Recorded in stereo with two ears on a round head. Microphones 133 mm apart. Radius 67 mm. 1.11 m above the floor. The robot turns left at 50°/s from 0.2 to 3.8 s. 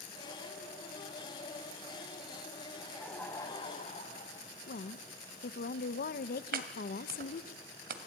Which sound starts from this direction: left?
A woman speaking, at 4.7 s.